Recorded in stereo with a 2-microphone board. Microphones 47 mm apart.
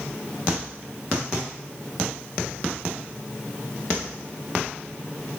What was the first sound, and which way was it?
Only background noise.